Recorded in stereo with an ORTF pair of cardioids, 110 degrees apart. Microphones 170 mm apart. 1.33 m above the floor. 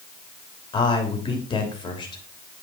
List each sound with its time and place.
0.7 s a man speaking: 25° left, 3 m